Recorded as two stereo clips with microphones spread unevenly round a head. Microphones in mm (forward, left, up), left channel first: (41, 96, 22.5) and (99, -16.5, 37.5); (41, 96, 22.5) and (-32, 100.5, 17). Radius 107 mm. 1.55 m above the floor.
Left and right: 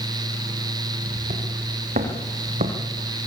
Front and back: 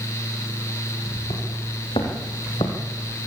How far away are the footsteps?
About 6 m.